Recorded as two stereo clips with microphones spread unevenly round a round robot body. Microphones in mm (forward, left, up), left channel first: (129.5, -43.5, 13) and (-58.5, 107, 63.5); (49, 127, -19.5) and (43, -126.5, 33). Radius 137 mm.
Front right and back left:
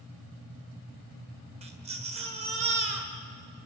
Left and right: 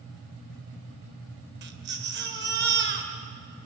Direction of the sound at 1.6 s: 150° right.